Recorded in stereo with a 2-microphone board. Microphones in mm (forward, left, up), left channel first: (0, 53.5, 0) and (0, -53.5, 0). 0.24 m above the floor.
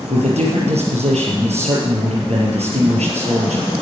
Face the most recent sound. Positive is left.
turn(degrees=-80)